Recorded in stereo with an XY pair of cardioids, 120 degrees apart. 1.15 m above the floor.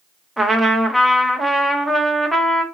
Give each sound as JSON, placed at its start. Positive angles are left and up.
{"t": 0.4, "sound": "a trumpet", "azimuth_deg": -5, "distance_m": 0.8}